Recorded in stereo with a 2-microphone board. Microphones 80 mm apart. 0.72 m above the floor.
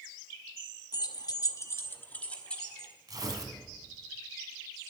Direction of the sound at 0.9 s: 55° left (ahead or behind).